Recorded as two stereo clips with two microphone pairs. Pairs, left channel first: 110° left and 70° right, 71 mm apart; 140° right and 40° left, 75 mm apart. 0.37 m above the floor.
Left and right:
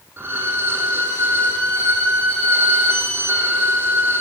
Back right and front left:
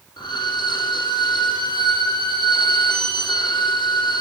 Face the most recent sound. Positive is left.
turn(degrees=-125)